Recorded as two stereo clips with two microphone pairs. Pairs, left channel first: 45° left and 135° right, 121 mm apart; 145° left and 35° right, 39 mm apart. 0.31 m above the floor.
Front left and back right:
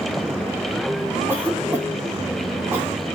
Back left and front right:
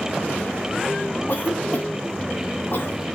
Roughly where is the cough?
Behind left.